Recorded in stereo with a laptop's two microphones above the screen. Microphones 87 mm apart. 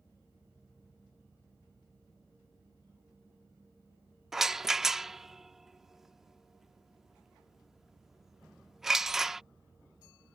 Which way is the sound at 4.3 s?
5° right (ahead or behind).